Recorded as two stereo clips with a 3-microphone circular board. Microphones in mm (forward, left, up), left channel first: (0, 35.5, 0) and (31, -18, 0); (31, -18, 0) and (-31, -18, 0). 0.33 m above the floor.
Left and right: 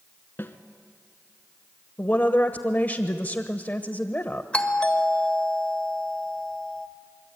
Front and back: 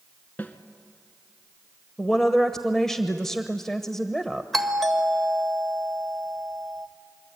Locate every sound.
0.4 s a snare drum: 60° left, 1.4 m
2.0 s a woman speaking: 75° left, 1.0 m
4.5 s a doorbell: 80° left, 1.5 m